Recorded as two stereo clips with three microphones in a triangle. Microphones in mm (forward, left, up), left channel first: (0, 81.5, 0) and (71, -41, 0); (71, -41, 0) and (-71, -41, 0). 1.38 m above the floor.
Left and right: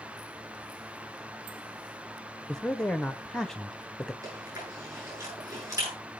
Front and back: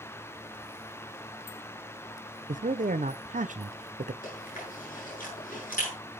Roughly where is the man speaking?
Behind right.